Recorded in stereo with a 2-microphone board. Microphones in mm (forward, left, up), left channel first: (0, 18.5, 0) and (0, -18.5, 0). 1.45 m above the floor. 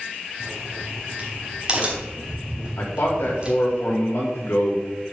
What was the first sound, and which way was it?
A crack, 30° right (ahead or behind).